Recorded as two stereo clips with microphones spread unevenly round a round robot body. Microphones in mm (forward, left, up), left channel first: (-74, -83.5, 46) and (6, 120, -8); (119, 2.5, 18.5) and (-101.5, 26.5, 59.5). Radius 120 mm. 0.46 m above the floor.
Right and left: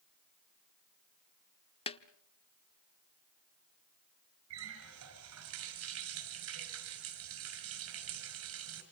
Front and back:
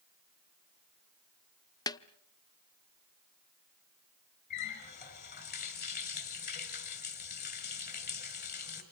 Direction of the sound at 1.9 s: 40° right.